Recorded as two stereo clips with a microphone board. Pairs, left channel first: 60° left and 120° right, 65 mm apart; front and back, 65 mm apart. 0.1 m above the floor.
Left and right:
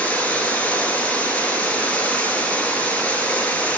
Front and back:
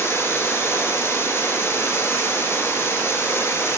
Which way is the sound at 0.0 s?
5° left.